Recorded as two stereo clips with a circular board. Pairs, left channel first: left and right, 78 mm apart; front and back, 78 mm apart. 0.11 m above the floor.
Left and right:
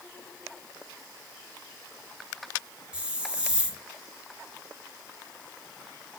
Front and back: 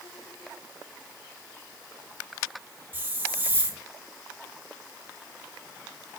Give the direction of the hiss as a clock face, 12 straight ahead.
5 o'clock.